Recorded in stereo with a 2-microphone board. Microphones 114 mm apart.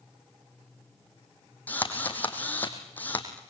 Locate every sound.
1.7 s a drill: 15° left (ahead or behind), 2.5 m